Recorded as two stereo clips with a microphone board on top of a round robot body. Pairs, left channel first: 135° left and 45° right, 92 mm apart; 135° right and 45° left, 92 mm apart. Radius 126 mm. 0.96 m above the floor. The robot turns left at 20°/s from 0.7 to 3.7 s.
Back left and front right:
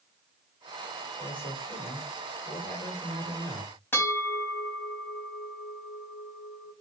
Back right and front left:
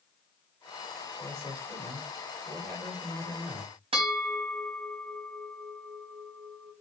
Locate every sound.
1.2 s a man speaking: 110° left, 4 m; by 3.7 s 60° left, 4 m
3.9 s a bell: 65° left, 3.5 m